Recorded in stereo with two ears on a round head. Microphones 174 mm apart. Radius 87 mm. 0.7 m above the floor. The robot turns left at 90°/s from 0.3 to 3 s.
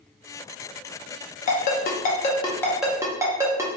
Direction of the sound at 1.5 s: 40° left (ahead or behind).